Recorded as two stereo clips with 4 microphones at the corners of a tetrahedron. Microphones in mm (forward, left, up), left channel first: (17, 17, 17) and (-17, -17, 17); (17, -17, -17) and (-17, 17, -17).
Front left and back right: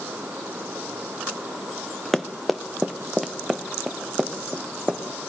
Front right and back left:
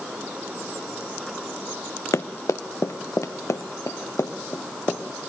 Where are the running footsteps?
40° right, 0.8 m; by 5.0 s 55° right, 2 m.